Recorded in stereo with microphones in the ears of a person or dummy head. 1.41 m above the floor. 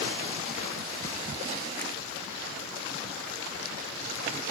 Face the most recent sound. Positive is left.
No sound to turn to.